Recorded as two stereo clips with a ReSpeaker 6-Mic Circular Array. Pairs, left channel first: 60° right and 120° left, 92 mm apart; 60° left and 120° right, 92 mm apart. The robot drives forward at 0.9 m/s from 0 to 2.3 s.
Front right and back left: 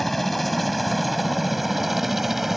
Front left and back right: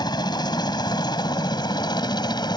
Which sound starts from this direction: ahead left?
A helicopter, at 0.0 s.